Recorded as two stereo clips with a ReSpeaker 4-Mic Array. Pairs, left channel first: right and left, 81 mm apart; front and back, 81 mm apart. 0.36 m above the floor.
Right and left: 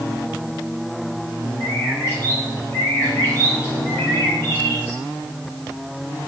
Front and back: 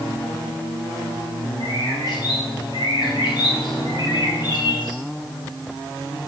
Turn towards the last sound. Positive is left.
turn(degrees=-30)